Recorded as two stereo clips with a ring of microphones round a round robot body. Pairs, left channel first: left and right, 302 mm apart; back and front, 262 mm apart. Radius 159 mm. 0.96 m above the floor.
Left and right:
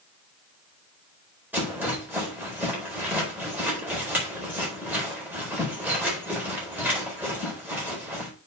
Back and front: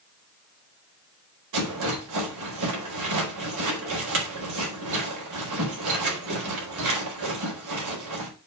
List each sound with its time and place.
1.5 s a rattle: 5° right, 4 m